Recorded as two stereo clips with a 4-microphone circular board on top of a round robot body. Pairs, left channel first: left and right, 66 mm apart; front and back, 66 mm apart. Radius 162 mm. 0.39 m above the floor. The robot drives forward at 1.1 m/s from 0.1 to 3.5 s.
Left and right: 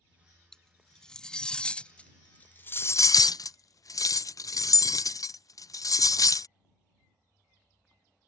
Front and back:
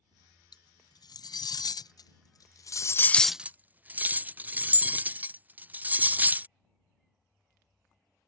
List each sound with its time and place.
0.5 s cutlery clinking: 10° left; by 6.5 s 115° left